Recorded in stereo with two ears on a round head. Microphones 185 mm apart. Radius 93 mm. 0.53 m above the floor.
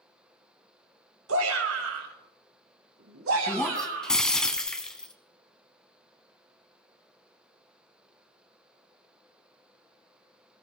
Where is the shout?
70° right (ahead or behind), 2.5 m; by 4.3 s 65° right (ahead or behind), 3.5 m.